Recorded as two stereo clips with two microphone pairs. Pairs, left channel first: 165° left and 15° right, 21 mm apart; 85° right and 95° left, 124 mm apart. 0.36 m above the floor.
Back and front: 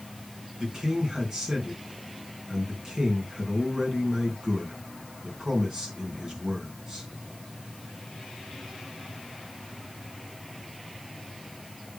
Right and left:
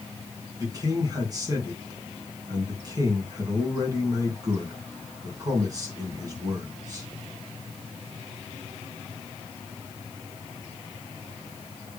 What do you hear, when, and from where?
0.6 s a man speaking: 40° left, 3 m